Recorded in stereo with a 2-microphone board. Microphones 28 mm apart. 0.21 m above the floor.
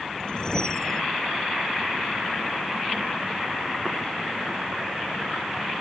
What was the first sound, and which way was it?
A whoosh, 30° left (ahead or behind).